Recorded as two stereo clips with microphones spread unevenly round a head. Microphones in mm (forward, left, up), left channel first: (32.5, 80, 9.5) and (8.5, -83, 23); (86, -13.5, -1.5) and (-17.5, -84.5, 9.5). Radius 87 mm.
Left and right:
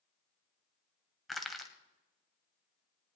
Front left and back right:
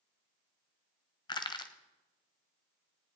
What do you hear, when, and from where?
1.3 s crushing: 10° right, 1.2 m